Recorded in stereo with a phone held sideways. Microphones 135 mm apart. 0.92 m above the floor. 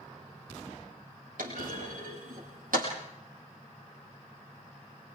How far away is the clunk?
About 7 m.